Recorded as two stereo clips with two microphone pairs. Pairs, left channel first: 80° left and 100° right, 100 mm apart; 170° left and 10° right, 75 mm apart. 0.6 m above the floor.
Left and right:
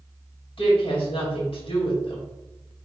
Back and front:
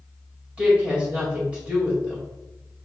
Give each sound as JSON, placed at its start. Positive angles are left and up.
{"t": 0.6, "sound": "a woman speaking", "azimuth_deg": 60, "distance_m": 2.0}